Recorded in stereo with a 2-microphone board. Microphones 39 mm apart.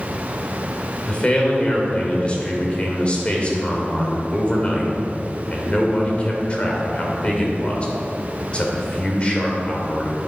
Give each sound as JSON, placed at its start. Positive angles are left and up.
{"t": 1.1, "sound": "a man speaking", "side_deg": 30, "distance_m": 2.5}